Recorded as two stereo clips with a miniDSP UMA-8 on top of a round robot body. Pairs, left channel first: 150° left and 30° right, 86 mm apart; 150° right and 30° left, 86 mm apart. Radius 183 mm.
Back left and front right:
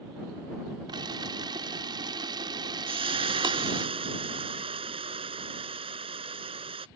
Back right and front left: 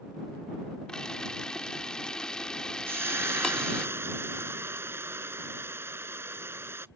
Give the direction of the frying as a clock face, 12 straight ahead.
1 o'clock.